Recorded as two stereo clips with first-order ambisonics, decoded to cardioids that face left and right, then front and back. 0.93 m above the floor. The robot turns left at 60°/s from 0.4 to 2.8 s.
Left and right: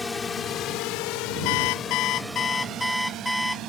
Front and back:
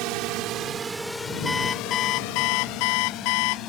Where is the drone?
165° left; by 3.7 s 45° right.